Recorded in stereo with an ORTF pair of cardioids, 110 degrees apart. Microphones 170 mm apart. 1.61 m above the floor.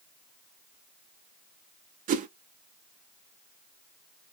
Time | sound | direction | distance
2.1 | a whoosh | 50° right | 0.5 m